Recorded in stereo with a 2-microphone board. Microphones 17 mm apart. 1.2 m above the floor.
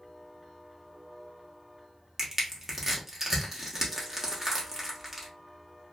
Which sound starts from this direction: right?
Crushing, at 2.2 s.